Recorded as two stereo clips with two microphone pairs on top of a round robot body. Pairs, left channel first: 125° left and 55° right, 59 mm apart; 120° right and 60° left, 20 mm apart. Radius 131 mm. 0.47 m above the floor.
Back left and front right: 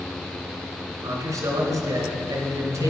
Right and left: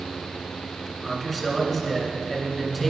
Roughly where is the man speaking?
Ahead right.